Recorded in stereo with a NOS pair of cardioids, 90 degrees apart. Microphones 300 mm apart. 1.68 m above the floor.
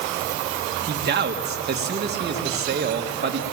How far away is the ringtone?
I don't hear a ringtone.